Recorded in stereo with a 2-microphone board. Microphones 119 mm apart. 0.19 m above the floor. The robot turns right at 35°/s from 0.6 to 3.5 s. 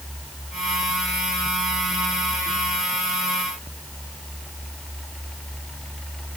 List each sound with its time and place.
Only background noise.